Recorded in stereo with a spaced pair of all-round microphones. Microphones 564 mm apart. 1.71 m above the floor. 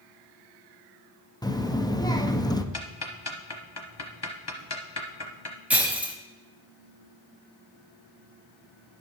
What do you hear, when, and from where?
1.4 s a child speaking: 5° left (ahead or behind), 0.6 m
2.7 s ticking: 45° left (ahead or behind), 1.0 m
5.7 s breaking glass: 5° right (ahead or behind), 0.8 m